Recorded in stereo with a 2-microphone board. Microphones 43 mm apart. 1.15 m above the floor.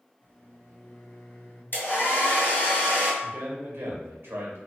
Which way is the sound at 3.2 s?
60° right (ahead or behind).